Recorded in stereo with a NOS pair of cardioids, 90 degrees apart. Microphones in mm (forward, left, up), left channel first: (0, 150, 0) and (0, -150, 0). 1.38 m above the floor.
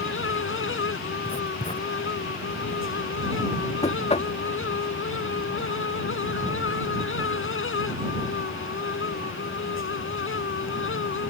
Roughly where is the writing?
Ahead.